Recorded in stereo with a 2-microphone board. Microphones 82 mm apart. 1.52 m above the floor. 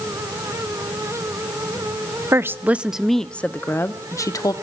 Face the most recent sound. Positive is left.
turn(degrees=45)  # may be behind; listen again after turning